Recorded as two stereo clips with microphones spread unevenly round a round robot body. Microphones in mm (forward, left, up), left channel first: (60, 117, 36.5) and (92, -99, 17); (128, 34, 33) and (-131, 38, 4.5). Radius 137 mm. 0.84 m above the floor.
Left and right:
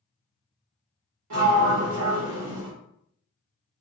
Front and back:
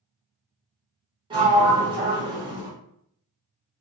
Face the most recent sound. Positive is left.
turn(degrees=-105)